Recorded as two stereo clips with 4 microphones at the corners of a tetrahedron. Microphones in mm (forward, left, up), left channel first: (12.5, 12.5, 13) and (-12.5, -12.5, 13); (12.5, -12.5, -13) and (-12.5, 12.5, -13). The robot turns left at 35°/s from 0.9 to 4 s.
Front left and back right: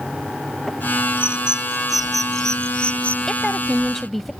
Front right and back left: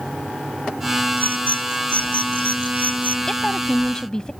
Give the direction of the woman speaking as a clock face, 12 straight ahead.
12 o'clock.